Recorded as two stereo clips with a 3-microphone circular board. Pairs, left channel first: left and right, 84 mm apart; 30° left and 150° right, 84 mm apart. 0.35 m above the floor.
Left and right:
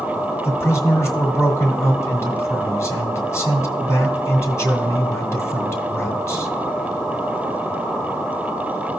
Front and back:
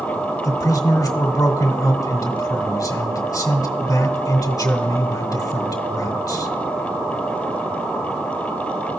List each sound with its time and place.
0.4 s a man speaking: 50° left, 1.6 m